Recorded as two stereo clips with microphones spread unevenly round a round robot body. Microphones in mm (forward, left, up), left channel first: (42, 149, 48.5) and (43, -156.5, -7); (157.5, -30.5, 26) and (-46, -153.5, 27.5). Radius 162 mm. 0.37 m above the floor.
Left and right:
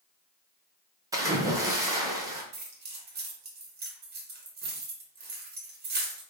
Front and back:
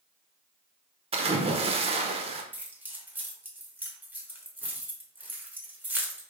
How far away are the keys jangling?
About 1.0 m.